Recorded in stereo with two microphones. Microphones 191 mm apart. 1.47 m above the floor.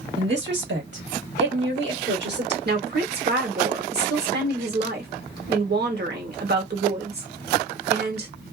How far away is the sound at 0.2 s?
About 1.7 m.